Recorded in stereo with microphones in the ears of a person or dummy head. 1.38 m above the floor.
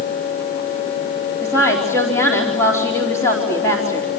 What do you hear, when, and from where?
1.4 s a woman speaking: 15° left (ahead or behind), 4 m